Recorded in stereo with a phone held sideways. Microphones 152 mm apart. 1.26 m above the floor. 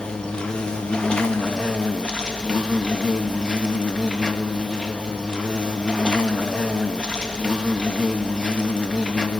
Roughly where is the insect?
Centre.